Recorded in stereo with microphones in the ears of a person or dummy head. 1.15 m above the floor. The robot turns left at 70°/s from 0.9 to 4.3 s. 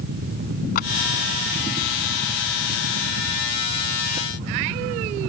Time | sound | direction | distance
0.8 | a clap | 50° left (ahead or behind) | ?